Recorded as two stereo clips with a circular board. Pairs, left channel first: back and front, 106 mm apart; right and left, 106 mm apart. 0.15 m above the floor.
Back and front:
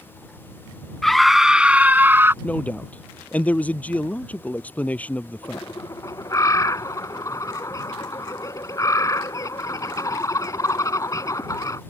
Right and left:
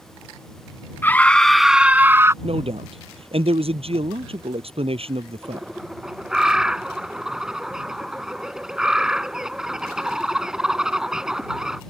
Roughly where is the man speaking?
Left.